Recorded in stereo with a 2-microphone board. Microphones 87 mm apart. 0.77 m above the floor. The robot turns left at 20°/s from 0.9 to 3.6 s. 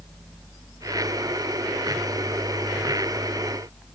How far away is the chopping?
I don't hear chopping.